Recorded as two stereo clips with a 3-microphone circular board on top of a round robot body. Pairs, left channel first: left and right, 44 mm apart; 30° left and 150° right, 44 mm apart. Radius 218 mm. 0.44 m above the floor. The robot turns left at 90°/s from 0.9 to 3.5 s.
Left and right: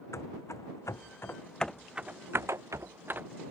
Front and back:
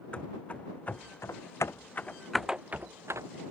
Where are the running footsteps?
95° left; by 3.3 s 150° right.